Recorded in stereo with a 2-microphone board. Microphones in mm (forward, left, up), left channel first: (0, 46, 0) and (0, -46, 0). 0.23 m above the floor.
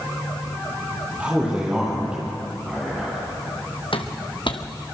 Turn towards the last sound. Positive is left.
turn(degrees=50)  # may be behind; listen again after turning